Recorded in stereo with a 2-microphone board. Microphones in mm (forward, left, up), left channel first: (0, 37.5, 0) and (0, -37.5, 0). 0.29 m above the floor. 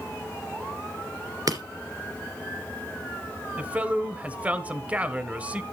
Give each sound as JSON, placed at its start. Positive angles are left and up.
{"t": 1.5, "sound": "breaking glass", "side_deg": -55, "distance_m": 2.5}
{"t": 3.6, "sound": "a man speaking", "side_deg": -15, "distance_m": 1.1}